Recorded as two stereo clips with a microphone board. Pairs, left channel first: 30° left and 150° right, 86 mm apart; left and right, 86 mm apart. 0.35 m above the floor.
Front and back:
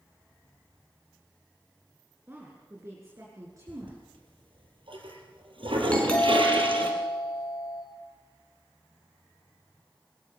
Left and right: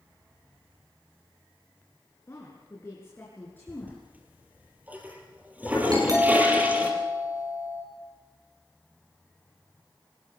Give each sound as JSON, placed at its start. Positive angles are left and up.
{"t": 2.3, "sound": "a woman speaking", "azimuth_deg": 145, "distance_m": 3.5}
{"t": 3.7, "sound": "a toilet flushing", "azimuth_deg": -160, "distance_m": 3.5}
{"t": 5.9, "sound": "a doorbell", "azimuth_deg": -50, "distance_m": 5.5}